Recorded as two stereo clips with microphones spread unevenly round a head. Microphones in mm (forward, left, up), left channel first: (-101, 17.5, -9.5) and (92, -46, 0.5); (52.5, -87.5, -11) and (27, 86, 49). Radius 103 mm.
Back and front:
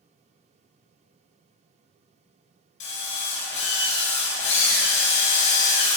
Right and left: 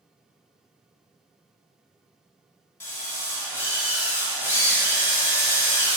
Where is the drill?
165° right, 4.5 m.